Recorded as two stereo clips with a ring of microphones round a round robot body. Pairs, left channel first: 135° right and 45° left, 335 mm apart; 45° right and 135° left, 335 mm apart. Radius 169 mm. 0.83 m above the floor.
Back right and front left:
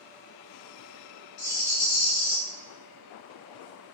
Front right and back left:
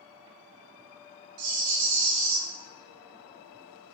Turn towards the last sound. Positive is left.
turn(degrees=165)